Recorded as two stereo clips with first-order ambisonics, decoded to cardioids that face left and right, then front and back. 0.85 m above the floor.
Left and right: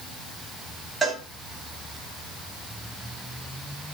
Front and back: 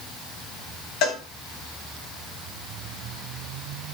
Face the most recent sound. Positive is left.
turn(degrees=-15)